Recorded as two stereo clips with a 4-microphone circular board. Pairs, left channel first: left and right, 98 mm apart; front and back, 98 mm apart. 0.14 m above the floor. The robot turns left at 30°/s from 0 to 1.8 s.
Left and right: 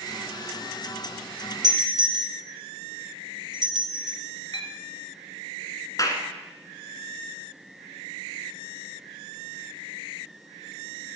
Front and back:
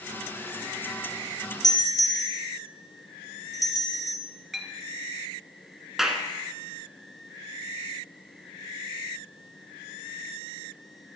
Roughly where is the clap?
Left.